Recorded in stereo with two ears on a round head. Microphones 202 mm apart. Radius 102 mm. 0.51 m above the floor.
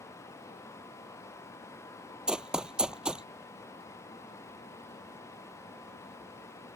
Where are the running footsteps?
5° right (ahead or behind).